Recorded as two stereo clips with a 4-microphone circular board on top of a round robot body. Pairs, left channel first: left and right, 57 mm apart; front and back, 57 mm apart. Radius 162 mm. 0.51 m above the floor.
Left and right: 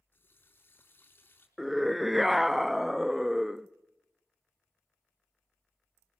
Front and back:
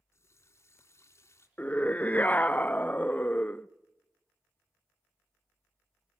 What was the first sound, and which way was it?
A running tap, 40° left.